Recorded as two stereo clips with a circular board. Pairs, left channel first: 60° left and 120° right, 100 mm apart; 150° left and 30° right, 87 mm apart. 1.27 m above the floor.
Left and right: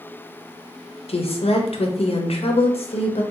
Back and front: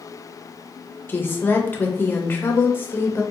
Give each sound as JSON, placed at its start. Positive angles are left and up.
{"t": 1.1, "sound": "a woman speaking", "azimuth_deg": 85, "distance_m": 0.6}